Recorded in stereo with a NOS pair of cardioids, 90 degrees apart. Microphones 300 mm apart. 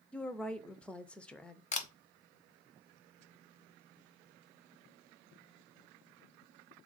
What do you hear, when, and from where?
0.1 s a woman speaking: 5° left, 0.5 m
1.7 s a camera shutter: 25° left, 0.7 m